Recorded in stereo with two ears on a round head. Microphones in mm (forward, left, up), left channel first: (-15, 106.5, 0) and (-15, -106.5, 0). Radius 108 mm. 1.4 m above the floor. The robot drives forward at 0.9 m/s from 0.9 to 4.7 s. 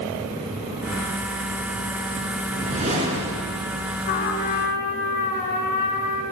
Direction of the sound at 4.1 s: 50° left (ahead or behind).